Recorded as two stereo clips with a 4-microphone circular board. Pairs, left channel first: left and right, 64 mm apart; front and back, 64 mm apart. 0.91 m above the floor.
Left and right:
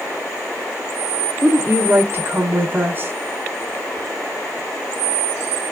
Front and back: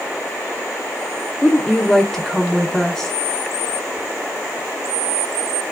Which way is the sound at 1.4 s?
75° right.